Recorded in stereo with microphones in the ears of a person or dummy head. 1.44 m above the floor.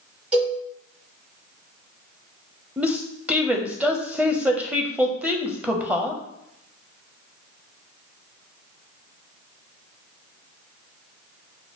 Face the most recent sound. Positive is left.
turn(degrees=-5)  # may be behind; listen again after turning